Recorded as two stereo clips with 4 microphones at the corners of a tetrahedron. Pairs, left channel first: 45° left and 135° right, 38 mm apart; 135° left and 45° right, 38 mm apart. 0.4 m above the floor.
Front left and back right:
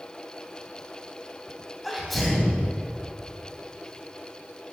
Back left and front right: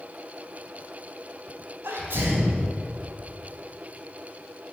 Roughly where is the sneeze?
Ahead right.